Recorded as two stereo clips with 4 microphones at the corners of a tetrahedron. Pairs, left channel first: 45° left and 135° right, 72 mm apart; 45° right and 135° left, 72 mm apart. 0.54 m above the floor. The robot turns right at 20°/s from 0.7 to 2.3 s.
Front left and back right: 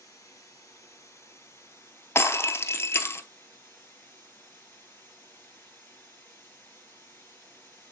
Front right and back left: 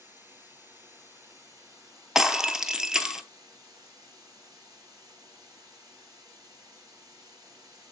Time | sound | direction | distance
0.0 | running water | 75° left | 3.5 m
2.1 | breaking glass | 55° left | 0.6 m